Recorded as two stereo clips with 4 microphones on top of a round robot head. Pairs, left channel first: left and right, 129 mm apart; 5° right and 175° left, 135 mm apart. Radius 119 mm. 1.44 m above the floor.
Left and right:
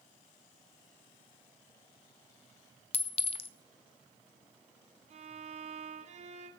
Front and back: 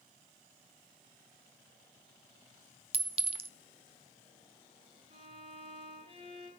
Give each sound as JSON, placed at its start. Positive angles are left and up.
{"t": 2.9, "sound": "a clink", "azimuth_deg": 130, "distance_m": 1.0}
{"t": 5.1, "sound": "a violin", "azimuth_deg": -125, "distance_m": 3.0}